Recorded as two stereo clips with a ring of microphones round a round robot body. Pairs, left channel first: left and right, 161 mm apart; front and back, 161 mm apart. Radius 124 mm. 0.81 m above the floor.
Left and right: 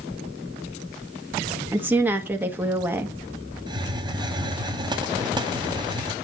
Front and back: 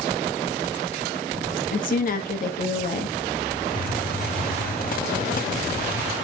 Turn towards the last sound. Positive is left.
turn(degrees=-30)